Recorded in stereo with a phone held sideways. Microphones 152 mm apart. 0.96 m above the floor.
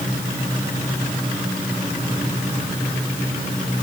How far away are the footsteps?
No footsteps in this recording.